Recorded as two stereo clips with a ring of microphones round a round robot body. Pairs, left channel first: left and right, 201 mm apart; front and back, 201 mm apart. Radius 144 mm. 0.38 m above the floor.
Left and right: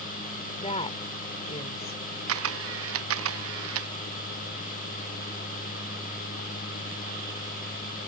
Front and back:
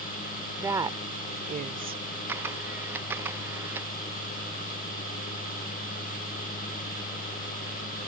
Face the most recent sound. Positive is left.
turn(degrees=-95)